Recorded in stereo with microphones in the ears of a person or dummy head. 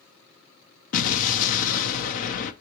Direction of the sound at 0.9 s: 45° left (ahead or behind).